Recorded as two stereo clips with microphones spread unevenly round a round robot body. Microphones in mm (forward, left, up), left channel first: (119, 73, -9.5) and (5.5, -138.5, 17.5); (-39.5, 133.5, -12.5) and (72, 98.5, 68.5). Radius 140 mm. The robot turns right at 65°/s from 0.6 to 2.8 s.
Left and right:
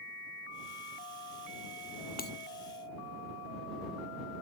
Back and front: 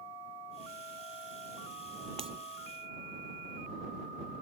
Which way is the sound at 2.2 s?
10° left.